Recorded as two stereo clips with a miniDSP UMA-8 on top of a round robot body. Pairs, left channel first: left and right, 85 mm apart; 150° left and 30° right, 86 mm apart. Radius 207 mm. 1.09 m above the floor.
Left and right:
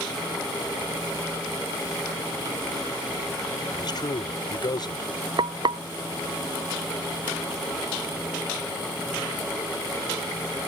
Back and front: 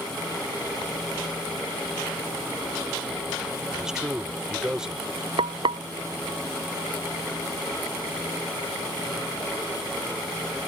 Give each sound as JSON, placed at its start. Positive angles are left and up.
{"t": 3.7, "sound": "a man speaking", "azimuth_deg": 55}
{"t": 5.4, "sound": "frying", "azimuth_deg": -55}